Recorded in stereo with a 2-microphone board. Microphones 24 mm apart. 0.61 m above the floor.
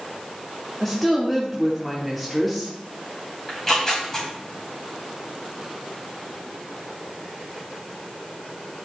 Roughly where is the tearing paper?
Centre.